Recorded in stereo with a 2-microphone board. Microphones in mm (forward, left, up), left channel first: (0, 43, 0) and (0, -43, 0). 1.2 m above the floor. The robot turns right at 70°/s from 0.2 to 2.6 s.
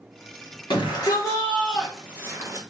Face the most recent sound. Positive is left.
turn(degrees=-125)